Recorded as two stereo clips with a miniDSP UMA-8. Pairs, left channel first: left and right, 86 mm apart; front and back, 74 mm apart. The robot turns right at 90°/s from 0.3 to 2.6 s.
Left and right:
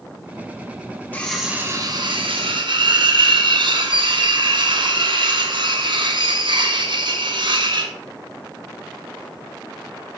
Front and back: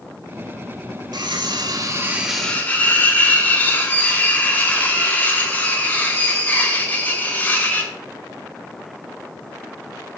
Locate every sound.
1.1 s cutlery clinking: 160° left, 1.3 m; by 7.9 s 70° right, 1.3 m